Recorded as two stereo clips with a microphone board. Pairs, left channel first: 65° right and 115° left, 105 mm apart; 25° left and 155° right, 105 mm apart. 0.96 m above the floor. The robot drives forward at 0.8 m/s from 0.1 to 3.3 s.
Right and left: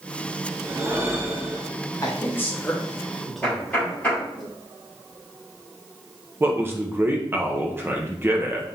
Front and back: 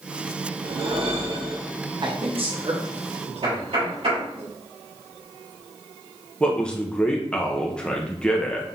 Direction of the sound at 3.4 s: 140° right.